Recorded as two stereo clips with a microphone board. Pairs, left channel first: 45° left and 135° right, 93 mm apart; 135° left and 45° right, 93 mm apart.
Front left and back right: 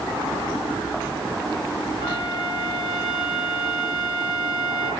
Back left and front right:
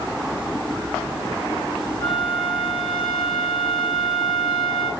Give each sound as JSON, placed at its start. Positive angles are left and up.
{"t": 2.0, "sound": "a flute", "azimuth_deg": -5, "distance_m": 3.5}